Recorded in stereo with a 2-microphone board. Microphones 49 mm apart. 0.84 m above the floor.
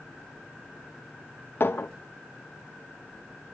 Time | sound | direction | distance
1.6 | a clink | 50° left (ahead or behind) | 1.0 m